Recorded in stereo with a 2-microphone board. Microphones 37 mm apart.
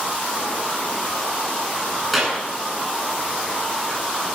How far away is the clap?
About 8.5 m.